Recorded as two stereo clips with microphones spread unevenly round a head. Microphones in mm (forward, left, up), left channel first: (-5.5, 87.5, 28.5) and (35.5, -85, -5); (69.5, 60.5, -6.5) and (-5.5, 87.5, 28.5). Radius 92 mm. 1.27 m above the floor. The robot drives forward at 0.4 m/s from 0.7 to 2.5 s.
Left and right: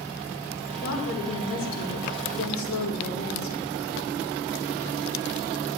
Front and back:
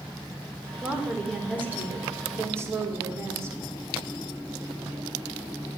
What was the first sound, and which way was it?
A woman speaking, 75° left.